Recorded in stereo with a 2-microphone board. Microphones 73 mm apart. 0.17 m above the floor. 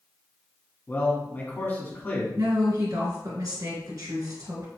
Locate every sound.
0.9 s a man speaking: 30° left (ahead or behind), 1.4 m
2.4 s a woman speaking: 55° right (ahead or behind), 1.8 m